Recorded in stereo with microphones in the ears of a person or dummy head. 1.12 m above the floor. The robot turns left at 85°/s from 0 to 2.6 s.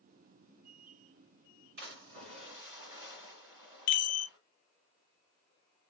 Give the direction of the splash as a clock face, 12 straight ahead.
3 o'clock.